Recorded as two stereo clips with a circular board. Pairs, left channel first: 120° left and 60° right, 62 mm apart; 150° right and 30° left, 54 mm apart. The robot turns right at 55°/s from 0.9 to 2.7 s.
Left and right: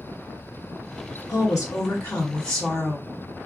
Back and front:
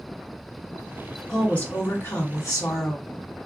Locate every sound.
1.3 s a woman speaking: 130° left, 1.2 m; by 3.1 s 155° right, 1.2 m